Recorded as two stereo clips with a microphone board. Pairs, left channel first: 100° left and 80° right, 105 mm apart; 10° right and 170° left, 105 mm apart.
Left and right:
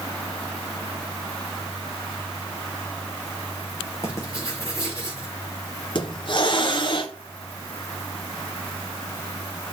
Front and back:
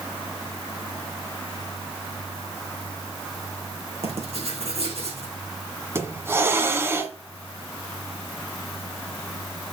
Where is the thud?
I don't hear a thud.